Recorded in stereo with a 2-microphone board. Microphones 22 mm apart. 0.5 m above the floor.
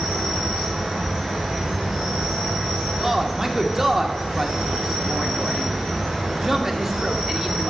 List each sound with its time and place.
0.0 s an insect: 20° right (ahead or behind), 3 m
3.0 s a man speaking: 20° right (ahead or behind), 1.0 m